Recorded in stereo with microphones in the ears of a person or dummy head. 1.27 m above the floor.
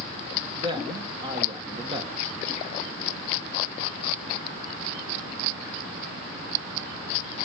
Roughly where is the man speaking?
Right.